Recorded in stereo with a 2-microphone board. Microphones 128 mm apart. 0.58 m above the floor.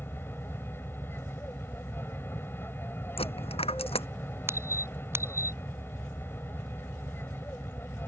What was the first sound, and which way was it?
An aircraft, 15° left (ahead or behind).